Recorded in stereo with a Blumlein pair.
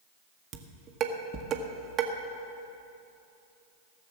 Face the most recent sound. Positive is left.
turn(degrees=-30)